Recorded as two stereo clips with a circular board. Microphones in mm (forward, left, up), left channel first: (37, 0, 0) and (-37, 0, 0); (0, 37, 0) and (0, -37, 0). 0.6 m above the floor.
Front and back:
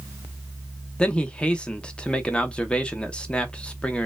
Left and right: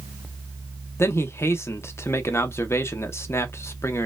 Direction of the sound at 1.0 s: 65° left.